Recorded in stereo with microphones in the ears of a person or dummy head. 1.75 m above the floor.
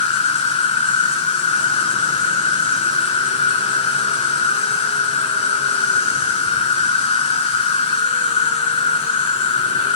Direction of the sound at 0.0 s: 25° left (ahead or behind).